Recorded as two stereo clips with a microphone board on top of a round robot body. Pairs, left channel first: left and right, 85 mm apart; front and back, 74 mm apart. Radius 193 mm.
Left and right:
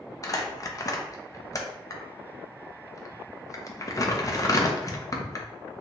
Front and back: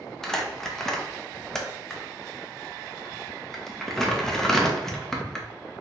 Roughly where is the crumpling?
Left.